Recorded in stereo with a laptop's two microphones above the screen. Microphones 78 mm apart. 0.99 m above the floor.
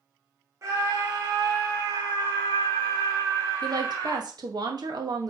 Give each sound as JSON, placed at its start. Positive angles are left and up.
{"t": 0.6, "sound": "a scream", "side_deg": -40, "distance_m": 1.3}
{"t": 3.6, "sound": "a woman speaking", "side_deg": -65, "distance_m": 1.6}